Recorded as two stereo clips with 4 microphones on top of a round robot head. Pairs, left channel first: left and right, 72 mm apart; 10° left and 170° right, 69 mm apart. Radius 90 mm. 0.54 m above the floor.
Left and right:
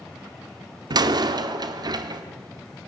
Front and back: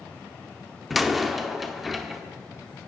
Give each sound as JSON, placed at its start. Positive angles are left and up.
{"t": 0.9, "sound": "a door slam", "azimuth_deg": -85, "distance_m": 0.9}